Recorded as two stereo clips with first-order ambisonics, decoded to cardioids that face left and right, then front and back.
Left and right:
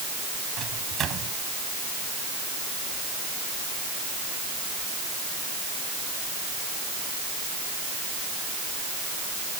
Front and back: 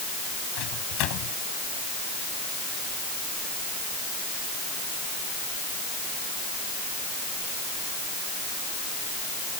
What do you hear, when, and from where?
0.6 s a microwave: 30° right